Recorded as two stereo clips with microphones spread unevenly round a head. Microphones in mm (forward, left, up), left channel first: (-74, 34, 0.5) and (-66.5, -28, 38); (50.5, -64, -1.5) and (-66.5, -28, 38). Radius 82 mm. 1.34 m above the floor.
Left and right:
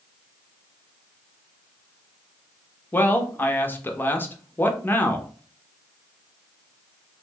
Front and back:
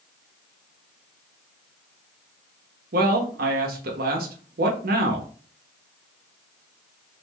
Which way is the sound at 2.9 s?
155° left.